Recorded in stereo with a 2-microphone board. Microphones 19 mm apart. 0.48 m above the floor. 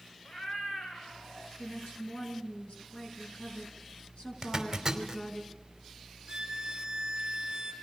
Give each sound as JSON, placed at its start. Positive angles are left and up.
{"t": 0.2, "sound": "a cat meowing", "side_deg": 45, "distance_m": 3.5}
{"t": 1.6, "sound": "a woman speaking", "side_deg": 80, "distance_m": 6.0}
{"t": 4.4, "sound": "a zipper", "side_deg": -20, "distance_m": 3.0}
{"t": 6.3, "sound": "a violin", "side_deg": -40, "distance_m": 3.0}